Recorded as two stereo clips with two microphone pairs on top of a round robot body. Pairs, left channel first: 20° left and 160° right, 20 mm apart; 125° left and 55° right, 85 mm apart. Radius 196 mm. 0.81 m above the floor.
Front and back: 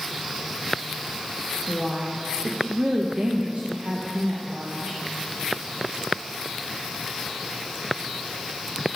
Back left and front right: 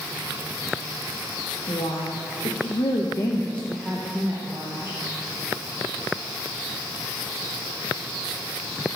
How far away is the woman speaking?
About 1.7 m.